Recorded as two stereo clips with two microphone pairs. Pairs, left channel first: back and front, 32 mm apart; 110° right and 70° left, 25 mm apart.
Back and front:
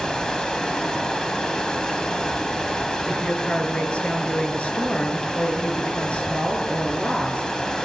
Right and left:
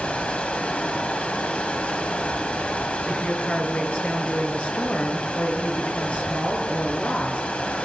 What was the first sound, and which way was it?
Running water, 115° right.